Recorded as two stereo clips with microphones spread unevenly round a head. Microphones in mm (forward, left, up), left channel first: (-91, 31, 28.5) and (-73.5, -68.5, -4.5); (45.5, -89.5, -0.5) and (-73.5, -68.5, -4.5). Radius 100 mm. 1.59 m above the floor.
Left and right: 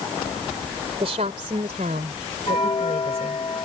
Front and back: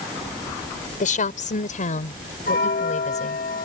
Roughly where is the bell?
Ahead left.